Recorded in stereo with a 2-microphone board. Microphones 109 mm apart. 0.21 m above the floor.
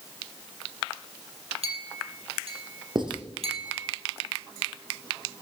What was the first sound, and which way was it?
A clink, 65° right (ahead or behind).